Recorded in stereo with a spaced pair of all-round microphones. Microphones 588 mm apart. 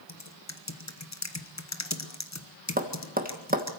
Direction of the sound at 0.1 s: 25° left (ahead or behind).